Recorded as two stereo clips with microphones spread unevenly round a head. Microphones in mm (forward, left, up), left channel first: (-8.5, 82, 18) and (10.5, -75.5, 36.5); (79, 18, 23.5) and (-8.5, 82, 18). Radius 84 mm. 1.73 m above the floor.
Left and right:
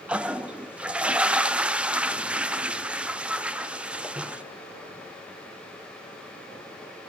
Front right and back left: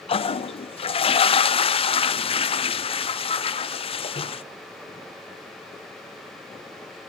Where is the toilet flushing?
Straight ahead, 0.7 m.